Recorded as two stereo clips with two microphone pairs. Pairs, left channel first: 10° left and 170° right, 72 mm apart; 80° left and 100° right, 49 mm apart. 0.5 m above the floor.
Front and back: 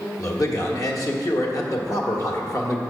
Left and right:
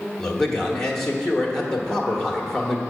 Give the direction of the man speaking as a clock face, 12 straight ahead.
12 o'clock.